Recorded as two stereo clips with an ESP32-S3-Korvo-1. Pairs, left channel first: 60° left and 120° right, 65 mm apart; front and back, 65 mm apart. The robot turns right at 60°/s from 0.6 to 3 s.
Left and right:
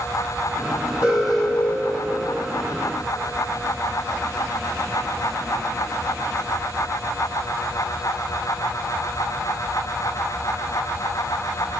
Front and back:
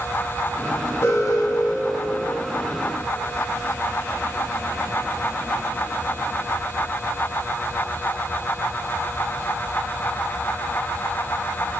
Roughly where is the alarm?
Ahead right.